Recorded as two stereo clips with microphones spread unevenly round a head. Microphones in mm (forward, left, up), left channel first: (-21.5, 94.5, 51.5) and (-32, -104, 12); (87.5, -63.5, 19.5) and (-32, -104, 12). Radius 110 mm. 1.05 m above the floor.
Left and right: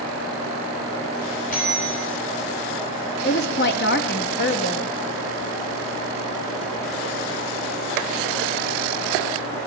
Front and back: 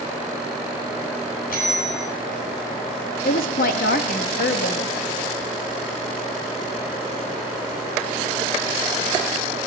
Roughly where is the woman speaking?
Ahead left.